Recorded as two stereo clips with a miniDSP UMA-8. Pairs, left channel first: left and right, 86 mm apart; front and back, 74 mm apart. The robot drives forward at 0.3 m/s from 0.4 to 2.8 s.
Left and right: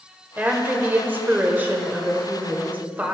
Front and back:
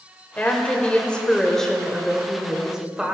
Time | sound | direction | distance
0.4 | a woman speaking | 40° right | 1.3 m